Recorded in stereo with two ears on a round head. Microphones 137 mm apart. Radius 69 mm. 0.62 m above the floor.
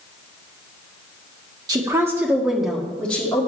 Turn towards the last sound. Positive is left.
turn(degrees=15)  # may be behind; listen again after turning